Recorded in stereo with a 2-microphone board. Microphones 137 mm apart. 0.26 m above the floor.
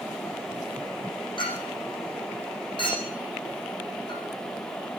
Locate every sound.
1.4 s a clink: 35° left (ahead or behind), 7 m